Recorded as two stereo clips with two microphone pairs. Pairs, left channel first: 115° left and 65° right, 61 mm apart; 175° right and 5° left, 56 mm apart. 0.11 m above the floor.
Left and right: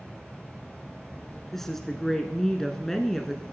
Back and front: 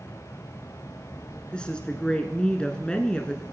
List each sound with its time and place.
0.0 s an insect: 160° right, 2.5 m
1.5 s a woman speaking: 175° right, 1.1 m